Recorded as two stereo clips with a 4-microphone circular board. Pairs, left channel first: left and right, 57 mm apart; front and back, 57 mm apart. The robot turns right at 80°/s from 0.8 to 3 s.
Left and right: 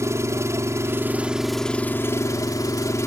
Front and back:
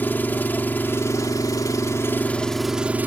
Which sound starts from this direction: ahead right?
An engine running, at 0.0 s.